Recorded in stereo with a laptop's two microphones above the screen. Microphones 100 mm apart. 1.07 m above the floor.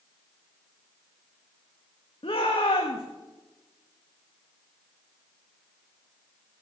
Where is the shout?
65° left (ahead or behind), 1.5 m.